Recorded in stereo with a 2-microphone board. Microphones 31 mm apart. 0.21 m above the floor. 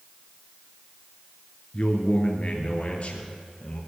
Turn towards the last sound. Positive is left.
turn(degrees=45)  # may be behind; listen again after turning